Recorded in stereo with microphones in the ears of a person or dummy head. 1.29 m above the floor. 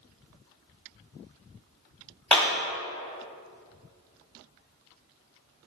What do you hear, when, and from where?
2.3 s a clap: 10° left (ahead or behind), 1.4 m